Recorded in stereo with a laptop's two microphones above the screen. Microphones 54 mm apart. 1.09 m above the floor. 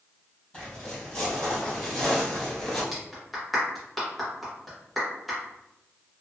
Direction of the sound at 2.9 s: Centre (ahead or behind).